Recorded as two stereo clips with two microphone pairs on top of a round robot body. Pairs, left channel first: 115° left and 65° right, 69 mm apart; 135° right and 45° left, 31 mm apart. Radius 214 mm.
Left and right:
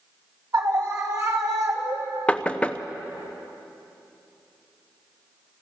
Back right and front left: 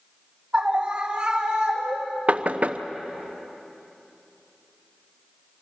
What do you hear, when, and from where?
0.5 s a scream: 20° right, 2.5 m
2.3 s knocking: 45° left, 1.1 m